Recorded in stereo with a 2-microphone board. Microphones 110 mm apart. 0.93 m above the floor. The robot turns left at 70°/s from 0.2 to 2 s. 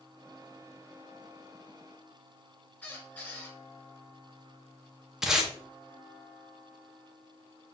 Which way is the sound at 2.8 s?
15° left (ahead or behind).